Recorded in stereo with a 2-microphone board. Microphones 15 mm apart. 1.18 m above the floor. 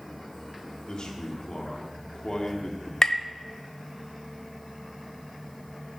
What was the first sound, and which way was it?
A man speaking, 55° left (ahead or behind).